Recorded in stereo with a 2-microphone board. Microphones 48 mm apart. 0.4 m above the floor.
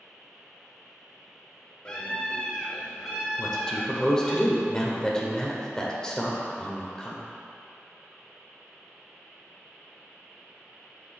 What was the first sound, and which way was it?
A scream, 20° left (ahead or behind).